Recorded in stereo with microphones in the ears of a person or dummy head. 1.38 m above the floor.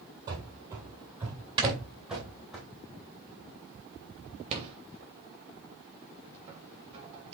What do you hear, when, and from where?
0.3 s running footsteps: 20° right (ahead or behind), 1.8 m; by 2.6 s centre (ahead or behind), 2.5 m
1.6 s snoring: 30° right (ahead or behind), 2.5 m
4.5 s a rattle: 35° right (ahead or behind), 3 m